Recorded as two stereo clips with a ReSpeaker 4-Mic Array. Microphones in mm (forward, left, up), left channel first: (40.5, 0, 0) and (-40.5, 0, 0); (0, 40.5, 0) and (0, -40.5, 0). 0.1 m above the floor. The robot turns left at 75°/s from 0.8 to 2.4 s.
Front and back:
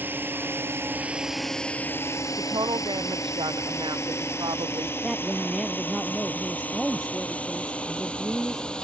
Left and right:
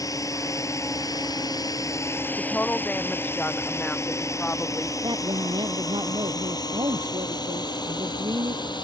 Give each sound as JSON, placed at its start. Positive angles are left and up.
{"t": 0.0, "sound": "a drone", "azimuth_deg": 120}
{"t": 2.4, "sound": "a woman speaking", "azimuth_deg": 165}
{"t": 5.0, "sound": "a woman speaking", "azimuth_deg": -90}